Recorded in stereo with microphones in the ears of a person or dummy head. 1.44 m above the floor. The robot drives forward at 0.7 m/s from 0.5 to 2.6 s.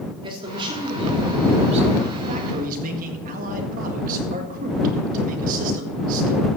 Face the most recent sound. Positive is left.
turn(degrees=-50)  # may be behind; listen again after turning